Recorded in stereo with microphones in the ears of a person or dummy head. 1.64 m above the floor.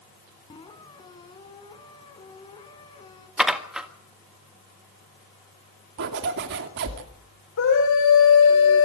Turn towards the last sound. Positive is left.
turn(degrees=70)  # may be behind; listen again after turning